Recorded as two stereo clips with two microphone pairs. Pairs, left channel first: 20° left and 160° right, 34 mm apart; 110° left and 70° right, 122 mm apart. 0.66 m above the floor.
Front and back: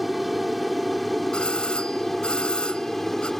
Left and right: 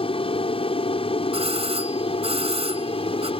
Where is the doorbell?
40° right.